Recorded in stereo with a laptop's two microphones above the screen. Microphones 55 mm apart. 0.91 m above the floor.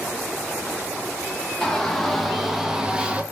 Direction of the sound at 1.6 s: 5° left (ahead or behind).